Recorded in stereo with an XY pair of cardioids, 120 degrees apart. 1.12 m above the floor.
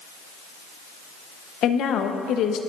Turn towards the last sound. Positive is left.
turn(degrees=65)